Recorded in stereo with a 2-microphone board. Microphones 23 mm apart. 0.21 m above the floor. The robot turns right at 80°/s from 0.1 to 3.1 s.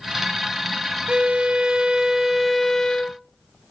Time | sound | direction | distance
1.1 | a violin | 115° right | 0.6 m